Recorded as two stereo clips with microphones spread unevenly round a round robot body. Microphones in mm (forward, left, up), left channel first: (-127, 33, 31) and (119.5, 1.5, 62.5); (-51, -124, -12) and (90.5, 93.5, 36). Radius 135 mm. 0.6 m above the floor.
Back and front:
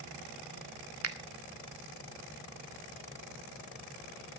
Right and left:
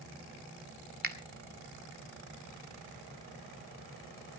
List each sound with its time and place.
1.0 s a finger snap: straight ahead, 1.8 m